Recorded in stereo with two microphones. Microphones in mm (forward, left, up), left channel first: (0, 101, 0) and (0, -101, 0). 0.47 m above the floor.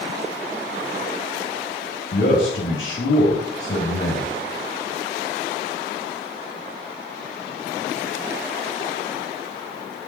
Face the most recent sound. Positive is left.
turn(degrees=65)  # may be behind; listen again after turning